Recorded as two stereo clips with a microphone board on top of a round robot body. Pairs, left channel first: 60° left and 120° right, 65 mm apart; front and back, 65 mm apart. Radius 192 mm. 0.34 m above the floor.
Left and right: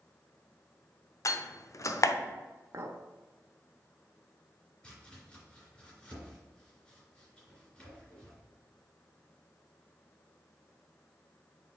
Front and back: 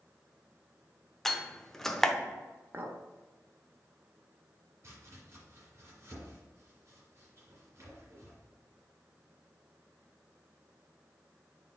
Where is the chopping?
135° left, 3 m.